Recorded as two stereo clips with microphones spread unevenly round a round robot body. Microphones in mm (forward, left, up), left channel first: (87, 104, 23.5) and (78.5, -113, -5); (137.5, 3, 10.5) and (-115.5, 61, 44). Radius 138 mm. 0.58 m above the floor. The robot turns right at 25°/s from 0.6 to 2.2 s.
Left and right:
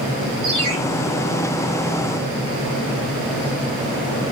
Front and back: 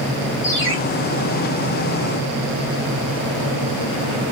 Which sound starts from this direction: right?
A ringtone, at 0.4 s.